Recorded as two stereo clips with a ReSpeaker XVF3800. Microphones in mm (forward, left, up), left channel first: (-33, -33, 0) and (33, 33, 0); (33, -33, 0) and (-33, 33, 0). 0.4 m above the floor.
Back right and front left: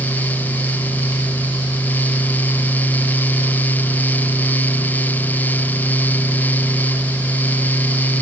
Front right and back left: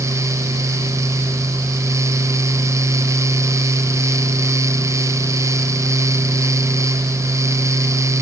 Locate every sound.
Only background noise.